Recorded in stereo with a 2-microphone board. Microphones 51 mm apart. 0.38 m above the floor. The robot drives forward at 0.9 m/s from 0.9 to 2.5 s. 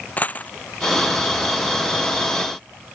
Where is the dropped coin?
30° left (ahead or behind).